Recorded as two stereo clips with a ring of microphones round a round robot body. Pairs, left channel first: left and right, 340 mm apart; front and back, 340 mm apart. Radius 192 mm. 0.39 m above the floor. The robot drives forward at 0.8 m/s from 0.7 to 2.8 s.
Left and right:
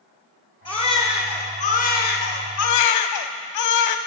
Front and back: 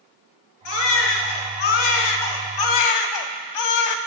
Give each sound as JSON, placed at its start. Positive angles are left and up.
{"t": 0.7, "sound": "a baby crying", "azimuth_deg": 15, "distance_m": 2.0}